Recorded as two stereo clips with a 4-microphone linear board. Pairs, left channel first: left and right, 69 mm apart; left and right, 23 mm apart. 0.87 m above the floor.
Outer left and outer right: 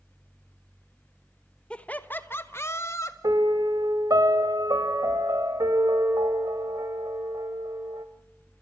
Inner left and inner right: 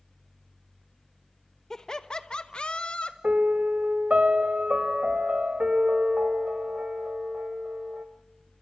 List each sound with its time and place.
1.7 s laughter: 15° left (ahead or behind), 1.1 m; by 3.1 s 45° left (ahead or behind), 1.8 m
3.2 s a piano: 70° right (ahead or behind), 1.6 m